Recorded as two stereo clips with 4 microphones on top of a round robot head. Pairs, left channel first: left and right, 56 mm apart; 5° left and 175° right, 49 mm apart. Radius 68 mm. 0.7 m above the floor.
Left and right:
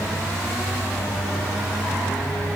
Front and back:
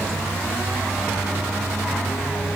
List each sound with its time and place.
Only background noise.